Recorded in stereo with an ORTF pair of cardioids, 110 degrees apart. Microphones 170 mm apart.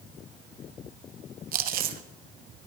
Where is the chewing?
60° right, 0.8 m.